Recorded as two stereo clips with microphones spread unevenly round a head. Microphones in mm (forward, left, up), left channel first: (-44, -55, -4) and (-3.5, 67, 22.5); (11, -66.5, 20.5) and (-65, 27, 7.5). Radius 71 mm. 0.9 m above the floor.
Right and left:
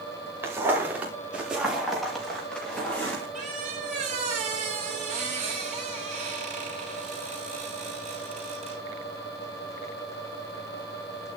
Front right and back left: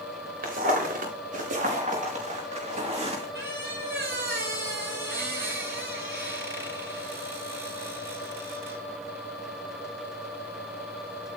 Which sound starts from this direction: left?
A squeak, at 3.4 s.